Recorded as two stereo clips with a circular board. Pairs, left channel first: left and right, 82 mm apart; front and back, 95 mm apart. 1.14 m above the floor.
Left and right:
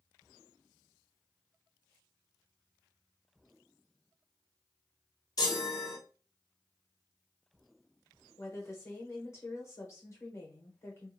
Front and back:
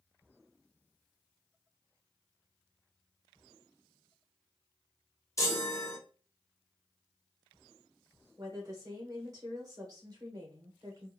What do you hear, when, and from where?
5.4 s a chime: 55° left, 0.7 m
8.4 s a woman speaking: 135° left, 1.0 m